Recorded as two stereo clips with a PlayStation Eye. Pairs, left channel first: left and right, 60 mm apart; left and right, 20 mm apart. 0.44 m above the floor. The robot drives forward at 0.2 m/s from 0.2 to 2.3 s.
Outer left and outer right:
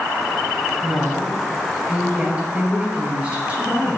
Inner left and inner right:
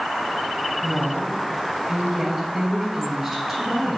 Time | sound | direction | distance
0.8 | a woman speaking | 25° right (ahead or behind) | 3 m